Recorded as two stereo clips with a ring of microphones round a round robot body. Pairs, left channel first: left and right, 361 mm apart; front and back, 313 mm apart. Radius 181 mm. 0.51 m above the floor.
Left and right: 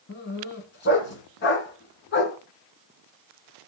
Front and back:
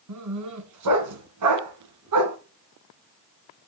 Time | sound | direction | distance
0.1 | a dog barking | 150° left | 1.7 m